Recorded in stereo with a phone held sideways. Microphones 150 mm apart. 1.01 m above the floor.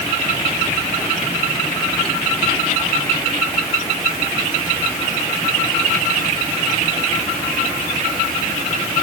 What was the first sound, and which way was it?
Only background noise.